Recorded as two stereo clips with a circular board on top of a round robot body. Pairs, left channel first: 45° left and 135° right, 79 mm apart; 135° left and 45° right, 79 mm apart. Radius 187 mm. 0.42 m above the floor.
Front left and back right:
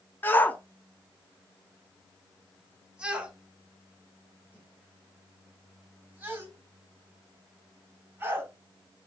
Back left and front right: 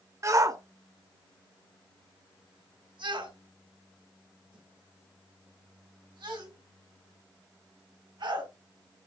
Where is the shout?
10° right, 1.2 m; by 8.5 s 70° right, 5 m.